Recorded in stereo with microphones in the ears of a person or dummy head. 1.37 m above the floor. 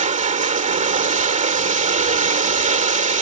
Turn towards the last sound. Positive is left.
turn(degrees=-35)  # may be behind; listen again after turning